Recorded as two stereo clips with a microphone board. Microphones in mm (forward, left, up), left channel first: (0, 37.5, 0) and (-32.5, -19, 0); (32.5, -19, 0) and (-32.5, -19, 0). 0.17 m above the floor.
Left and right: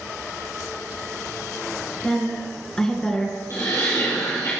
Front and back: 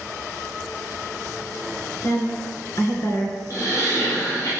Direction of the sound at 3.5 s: 30° left.